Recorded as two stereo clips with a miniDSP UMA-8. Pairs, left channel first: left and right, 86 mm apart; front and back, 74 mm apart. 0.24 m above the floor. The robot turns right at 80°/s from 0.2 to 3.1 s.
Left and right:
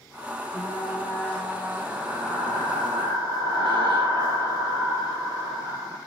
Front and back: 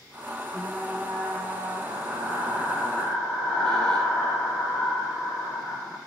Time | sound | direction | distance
0.5 | frying | 75° left | 8 m